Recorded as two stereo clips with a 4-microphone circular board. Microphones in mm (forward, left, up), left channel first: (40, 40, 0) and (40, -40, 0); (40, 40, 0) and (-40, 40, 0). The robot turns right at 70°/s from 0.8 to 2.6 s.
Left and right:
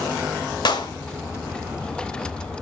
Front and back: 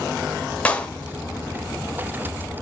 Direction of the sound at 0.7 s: 75° left.